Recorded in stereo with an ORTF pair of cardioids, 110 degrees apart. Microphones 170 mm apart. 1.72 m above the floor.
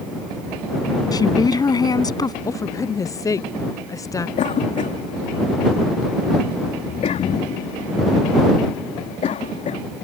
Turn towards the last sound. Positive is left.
turn(degrees=45)